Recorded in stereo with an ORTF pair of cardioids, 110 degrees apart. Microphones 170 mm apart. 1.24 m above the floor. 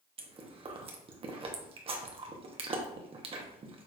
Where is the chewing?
35° right, 0.9 m.